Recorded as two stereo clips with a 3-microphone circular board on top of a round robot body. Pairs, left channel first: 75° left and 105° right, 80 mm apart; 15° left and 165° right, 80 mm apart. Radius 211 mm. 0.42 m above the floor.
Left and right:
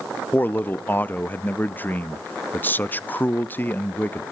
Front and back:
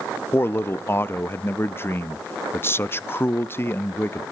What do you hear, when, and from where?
0.3 s a man speaking: 35° left, 0.8 m